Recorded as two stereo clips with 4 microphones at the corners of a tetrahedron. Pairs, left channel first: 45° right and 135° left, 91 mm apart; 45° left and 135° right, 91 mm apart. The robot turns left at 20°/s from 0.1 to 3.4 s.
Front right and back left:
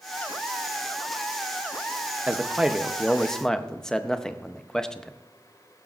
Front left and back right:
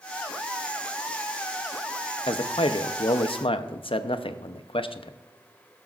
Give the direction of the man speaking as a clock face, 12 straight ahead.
10 o'clock.